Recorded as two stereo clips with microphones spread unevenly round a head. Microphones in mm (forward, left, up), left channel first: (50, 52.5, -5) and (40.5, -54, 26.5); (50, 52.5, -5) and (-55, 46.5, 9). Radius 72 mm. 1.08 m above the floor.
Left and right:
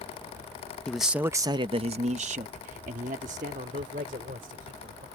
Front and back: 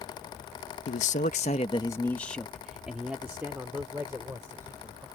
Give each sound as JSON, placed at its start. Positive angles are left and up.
{"t": 0.9, "sound": "a man speaking", "azimuth_deg": 5}